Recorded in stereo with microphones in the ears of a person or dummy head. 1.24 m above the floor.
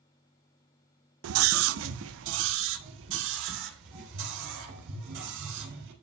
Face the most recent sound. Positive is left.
turn(degrees=-70)  # may be behind; listen again after turning